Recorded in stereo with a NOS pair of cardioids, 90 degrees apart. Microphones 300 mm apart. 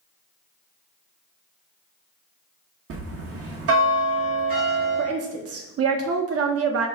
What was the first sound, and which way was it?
A bell, 50° right.